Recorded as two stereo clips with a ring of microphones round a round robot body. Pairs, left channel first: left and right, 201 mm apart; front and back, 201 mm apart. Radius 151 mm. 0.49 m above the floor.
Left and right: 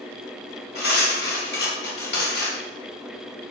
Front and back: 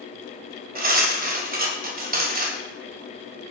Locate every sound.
0.8 s cutlery clinking: 135° left, 1.9 m